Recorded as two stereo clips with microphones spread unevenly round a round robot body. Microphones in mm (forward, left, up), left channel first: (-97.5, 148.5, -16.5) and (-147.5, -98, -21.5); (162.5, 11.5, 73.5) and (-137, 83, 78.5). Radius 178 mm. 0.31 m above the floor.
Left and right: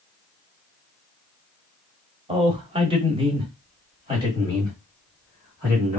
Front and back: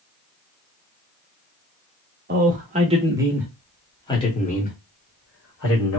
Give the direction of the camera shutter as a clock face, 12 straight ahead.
No camera shutter in this recording.